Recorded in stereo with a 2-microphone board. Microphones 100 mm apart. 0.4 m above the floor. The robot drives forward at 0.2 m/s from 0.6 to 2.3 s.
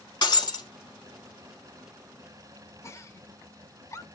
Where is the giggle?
30° left (ahead or behind), 0.6 m.